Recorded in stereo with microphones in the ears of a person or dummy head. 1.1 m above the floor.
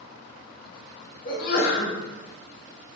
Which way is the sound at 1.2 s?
45° left (ahead or behind).